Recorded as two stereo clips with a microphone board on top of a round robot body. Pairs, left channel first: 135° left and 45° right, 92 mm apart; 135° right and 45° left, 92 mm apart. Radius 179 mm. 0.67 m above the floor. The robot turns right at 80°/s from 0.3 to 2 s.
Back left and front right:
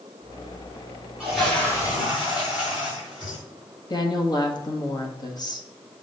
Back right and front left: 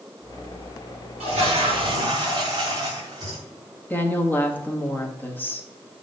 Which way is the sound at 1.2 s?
30° left.